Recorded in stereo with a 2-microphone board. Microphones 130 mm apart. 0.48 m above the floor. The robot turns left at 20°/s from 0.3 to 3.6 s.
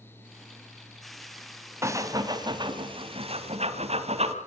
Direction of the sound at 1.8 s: 20° right (ahead or behind).